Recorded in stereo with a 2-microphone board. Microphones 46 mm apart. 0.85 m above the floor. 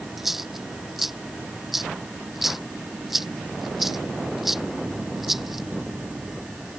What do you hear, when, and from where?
0.2 s a dropped coin: 5° right (ahead or behind)